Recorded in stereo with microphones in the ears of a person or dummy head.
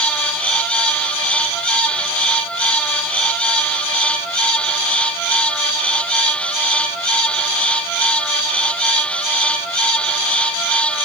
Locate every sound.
Only background noise.